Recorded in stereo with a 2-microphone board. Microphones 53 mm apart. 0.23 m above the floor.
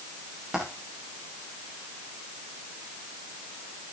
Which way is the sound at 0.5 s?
10° right (ahead or behind).